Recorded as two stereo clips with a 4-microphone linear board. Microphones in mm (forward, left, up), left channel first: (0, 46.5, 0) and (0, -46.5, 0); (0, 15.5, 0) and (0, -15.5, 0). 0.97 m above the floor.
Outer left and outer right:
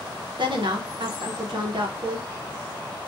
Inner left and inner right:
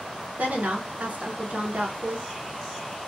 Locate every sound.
0.4 s a woman speaking: 60° right (ahead or behind), 0.7 m